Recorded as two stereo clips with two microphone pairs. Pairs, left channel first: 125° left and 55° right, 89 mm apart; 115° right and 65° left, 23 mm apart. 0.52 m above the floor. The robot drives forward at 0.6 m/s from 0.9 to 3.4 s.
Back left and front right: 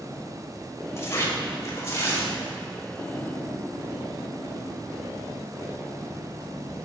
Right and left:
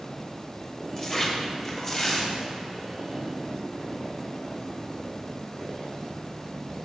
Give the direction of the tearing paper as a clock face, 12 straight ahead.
6 o'clock.